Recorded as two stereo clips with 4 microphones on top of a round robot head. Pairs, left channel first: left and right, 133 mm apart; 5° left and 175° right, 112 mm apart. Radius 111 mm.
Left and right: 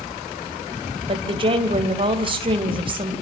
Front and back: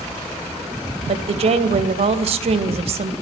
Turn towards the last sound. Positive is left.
turn(degrees=-140)